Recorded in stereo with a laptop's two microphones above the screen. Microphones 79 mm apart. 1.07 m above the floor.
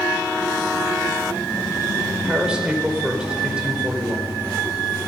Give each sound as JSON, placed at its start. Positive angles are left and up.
{"t": 2.2, "sound": "a man speaking", "side_deg": -15, "distance_m": 5.0}